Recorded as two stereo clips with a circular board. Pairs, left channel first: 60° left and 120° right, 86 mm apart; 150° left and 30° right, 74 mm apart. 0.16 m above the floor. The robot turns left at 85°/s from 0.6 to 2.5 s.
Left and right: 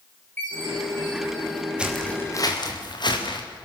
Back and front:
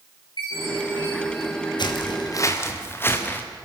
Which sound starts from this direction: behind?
Footsteps, at 1.8 s.